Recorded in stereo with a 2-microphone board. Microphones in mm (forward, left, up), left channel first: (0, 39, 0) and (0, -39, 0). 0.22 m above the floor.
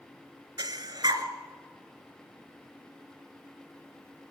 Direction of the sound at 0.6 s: 65° right (ahead or behind).